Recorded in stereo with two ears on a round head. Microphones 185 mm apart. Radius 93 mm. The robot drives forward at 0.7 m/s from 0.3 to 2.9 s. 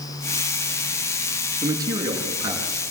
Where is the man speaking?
15° right (ahead or behind), 6 m; by 2.8 s 20° right (ahead or behind), 5 m.